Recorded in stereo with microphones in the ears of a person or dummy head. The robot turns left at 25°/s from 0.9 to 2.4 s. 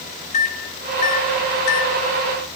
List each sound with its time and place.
0.3 s a microwave: 40° left (ahead or behind), 0.6 m; by 2.0 s 65° left (ahead or behind), 0.6 m